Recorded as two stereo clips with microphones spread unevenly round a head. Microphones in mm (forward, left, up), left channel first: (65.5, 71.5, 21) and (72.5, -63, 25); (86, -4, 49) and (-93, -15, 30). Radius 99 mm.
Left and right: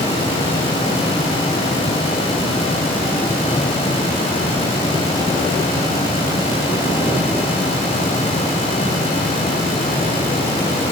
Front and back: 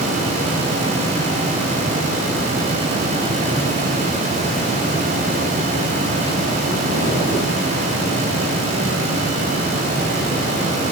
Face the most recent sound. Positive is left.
No sound to turn to.